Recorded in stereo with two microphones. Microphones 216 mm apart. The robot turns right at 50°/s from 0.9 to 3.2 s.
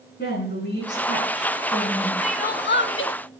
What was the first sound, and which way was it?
A woman speaking, 125° left.